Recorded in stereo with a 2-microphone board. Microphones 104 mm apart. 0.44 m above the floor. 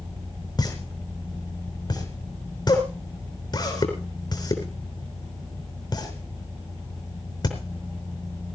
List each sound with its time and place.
0.6 s a pop: 40° left (ahead or behind), 4 m